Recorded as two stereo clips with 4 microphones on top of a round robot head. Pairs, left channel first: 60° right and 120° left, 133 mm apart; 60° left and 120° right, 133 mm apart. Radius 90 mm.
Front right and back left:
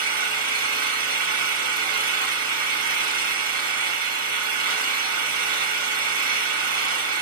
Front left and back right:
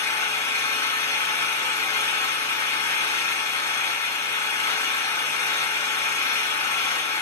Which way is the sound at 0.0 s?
125° left.